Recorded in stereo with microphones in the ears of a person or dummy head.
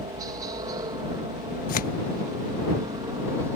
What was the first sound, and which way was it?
A helicopter, 20° right (ahead or behind).